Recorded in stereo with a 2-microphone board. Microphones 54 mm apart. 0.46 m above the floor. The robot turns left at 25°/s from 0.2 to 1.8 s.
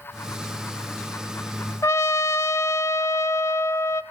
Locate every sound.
1.8 s a trumpet: 70° left (ahead or behind), 0.7 m